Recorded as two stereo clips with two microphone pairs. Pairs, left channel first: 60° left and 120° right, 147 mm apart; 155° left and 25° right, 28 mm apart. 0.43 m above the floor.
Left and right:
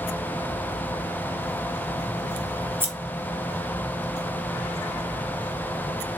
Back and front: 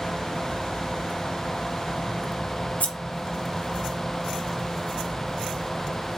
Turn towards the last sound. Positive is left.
turn(degrees=165)